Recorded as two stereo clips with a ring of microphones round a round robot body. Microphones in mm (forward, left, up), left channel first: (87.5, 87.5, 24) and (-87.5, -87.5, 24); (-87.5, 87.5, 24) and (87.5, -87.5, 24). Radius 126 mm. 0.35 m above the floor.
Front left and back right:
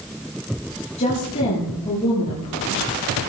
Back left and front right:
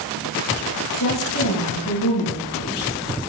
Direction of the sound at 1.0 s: 110° left.